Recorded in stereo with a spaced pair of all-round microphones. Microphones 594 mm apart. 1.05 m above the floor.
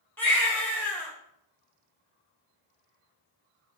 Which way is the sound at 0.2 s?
5° left (ahead or behind).